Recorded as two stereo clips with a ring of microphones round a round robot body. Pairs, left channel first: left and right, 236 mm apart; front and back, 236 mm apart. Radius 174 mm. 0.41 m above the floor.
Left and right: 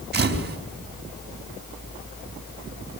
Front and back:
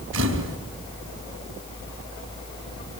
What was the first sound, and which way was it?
A camera shutter, 135° right.